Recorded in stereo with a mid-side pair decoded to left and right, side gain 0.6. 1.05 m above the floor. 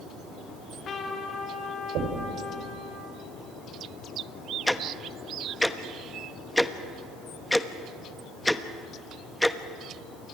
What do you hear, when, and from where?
0.5 s a trumpet: 45° left, 3.5 m
1.9 s knocking: 65° right, 4 m
4.7 s ticking: 5° left, 1.1 m